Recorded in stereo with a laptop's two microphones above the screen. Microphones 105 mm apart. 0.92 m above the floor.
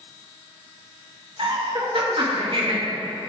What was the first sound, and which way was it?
Laughter, 60° right (ahead or behind).